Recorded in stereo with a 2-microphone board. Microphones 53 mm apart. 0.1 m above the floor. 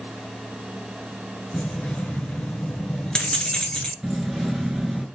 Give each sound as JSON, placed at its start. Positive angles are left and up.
{"t": 1.5, "sound": "keys jangling", "side_deg": 15, "distance_m": 1.0}
{"t": 4.0, "sound": "keys jangling", "side_deg": -5, "distance_m": 0.9}